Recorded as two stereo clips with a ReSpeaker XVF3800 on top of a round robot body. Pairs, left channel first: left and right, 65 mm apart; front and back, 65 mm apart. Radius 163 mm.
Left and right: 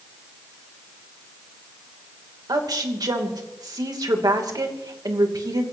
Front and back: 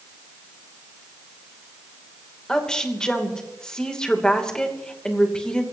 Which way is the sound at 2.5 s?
80° right.